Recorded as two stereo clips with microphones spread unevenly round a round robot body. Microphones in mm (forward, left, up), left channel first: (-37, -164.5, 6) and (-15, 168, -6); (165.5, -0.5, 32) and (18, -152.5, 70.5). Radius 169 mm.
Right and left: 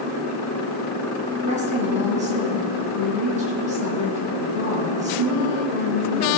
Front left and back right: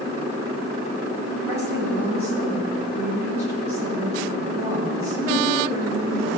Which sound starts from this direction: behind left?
A woman speaking, at 1.4 s.